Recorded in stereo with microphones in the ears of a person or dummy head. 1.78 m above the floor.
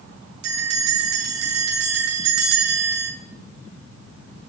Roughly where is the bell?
Right.